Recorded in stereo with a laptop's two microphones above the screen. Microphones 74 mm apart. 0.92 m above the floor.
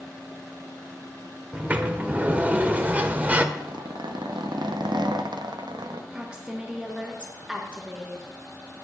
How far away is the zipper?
About 0.6 m.